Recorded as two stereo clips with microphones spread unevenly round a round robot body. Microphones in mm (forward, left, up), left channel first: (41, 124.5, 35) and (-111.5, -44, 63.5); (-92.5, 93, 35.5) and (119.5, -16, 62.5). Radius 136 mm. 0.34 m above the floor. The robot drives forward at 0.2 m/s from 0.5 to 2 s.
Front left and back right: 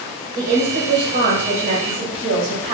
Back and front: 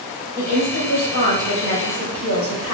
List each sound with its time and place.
0.3 s a woman speaking: 175° right, 1.9 m; by 2.7 s straight behind, 2 m